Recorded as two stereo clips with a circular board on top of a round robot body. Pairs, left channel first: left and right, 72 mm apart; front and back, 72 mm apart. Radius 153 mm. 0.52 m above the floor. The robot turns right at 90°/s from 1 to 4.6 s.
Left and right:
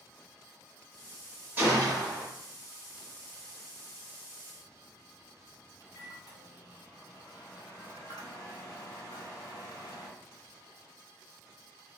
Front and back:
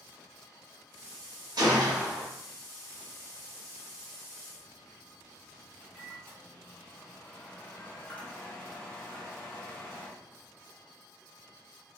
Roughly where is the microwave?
Ahead left.